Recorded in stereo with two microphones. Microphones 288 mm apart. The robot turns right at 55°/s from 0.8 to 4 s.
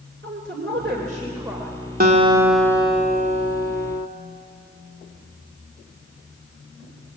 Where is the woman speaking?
45° right, 2.5 m; by 1.8 s 10° left, 2.5 m.